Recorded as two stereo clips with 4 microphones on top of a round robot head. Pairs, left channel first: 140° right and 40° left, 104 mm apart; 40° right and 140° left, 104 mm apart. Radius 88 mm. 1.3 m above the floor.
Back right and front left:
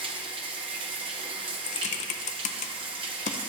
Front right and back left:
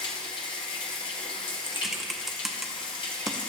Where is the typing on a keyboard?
130° right, 0.6 m.